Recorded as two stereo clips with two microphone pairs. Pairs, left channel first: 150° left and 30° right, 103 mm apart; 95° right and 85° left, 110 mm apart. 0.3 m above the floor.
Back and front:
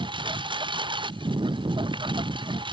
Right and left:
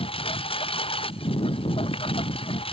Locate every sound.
0.0 s a lawn mower: 65° right